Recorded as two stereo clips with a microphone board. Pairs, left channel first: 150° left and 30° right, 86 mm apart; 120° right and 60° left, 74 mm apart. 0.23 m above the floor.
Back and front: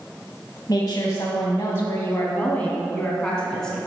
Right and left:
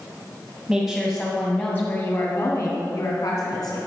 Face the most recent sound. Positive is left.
turn(degrees=-125)